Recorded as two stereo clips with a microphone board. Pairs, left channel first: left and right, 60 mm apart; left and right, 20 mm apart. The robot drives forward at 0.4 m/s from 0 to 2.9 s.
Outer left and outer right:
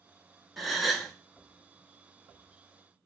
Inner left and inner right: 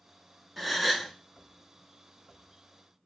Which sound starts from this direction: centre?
A gasp, at 0.6 s.